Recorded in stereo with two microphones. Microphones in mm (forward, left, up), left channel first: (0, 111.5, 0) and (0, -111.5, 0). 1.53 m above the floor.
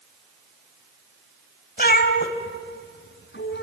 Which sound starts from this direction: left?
A cat meowing, at 1.8 s.